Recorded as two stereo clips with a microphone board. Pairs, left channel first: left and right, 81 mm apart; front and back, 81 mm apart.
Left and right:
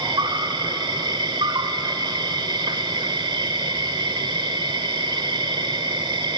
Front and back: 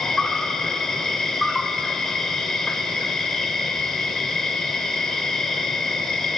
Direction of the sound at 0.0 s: 85° right.